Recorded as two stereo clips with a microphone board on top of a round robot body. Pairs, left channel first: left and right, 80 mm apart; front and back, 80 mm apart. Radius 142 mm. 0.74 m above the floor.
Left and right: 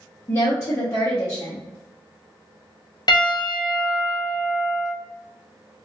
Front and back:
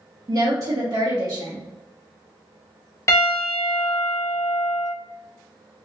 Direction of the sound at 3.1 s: 55° left.